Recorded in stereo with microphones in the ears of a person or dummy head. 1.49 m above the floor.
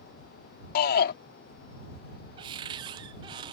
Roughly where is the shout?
Left.